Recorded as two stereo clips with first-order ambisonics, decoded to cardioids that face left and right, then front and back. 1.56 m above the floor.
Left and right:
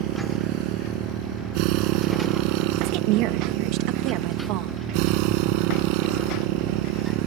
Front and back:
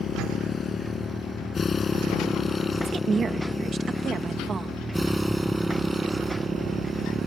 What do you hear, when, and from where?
0.0 s a motorcycle: 65° right; by 7.3 s 105° right
2.8 s a woman speaking: 110° right